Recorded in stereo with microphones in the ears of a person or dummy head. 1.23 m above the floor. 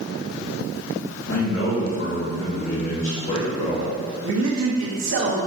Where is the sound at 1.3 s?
55° left (ahead or behind), 2 m; by 3.9 s 10° left (ahead or behind), 0.8 m.